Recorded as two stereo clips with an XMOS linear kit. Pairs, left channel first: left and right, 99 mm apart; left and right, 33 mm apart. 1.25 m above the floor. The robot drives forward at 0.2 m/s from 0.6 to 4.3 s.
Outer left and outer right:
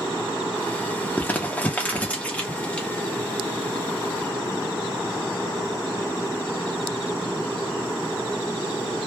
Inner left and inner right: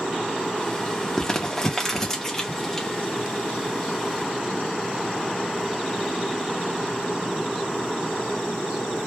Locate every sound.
1.2 s crumpling: 20° left (ahead or behind), 0.5 m; by 2.9 s 10° left (ahead or behind), 0.8 m